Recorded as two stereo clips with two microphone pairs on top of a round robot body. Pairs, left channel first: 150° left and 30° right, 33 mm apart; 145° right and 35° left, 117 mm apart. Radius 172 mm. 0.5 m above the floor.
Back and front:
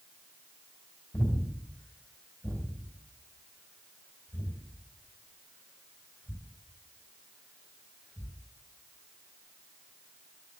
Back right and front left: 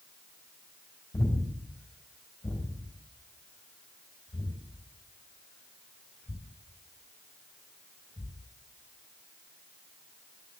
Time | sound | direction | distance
1.1 | breathing | 155° left | 3 m